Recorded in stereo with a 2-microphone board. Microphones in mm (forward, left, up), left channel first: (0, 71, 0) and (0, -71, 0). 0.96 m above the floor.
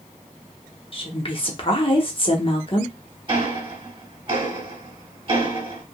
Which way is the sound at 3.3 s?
40° right (ahead or behind).